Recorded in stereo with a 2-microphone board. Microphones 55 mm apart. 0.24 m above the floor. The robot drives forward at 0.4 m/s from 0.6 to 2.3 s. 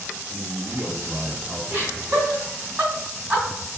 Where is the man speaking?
25° right (ahead or behind), 1.6 m.